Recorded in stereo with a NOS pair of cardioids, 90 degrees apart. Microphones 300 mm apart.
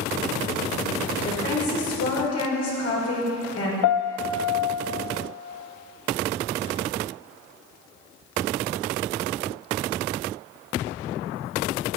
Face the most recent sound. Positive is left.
turn(degrees=70)